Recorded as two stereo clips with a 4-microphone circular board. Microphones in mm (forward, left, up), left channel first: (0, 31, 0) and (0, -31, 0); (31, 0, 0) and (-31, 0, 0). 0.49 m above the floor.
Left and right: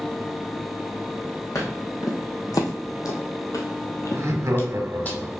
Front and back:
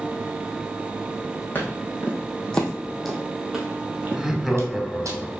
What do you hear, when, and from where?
1.6 s footsteps: 60° left, 1.7 m; by 5.1 s 155° left, 1.2 m
4.1 s laughter: 90° right, 1.1 m